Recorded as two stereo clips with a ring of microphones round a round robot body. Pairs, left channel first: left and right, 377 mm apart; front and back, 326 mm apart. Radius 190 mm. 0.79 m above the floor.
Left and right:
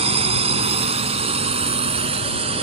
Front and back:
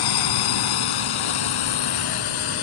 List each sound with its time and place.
0.0 s a drone: 15° right